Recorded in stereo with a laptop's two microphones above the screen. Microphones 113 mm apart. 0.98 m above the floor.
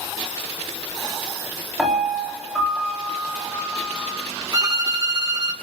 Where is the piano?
Centre (ahead or behind), 5.5 m.